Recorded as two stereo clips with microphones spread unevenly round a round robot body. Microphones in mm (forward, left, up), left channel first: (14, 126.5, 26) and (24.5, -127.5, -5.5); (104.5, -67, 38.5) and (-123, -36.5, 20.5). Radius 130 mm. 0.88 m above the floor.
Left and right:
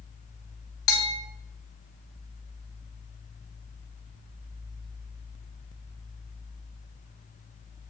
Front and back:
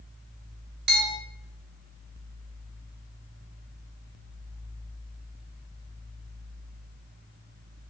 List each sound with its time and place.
0.9 s a bell: 130° left, 2.5 m